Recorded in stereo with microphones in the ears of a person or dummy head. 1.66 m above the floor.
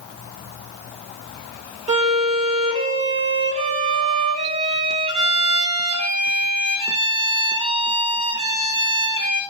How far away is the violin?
About 0.8 m.